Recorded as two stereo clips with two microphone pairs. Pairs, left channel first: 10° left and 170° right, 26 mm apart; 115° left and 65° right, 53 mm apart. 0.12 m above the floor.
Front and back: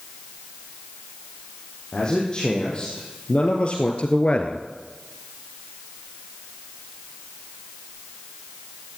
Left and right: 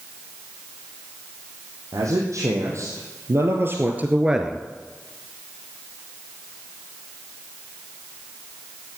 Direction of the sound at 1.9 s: 50° right.